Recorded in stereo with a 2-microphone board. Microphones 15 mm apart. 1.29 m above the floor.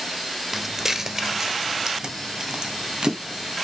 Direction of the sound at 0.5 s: 20° right (ahead or behind).